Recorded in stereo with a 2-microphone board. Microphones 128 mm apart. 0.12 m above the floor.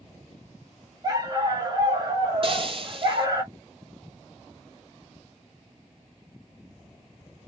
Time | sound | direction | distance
1.0 | a dog barking | 30° right (ahead or behind) | 1.4 m
2.4 | frying | 45° right (ahead or behind) | 0.6 m